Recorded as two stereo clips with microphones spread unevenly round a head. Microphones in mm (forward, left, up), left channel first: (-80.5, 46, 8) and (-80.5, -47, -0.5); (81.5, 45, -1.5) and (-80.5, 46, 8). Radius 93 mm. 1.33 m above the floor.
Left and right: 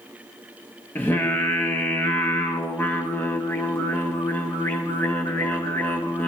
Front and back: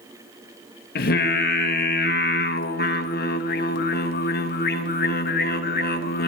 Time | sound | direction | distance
0.9 | singing | 15° left | 0.9 m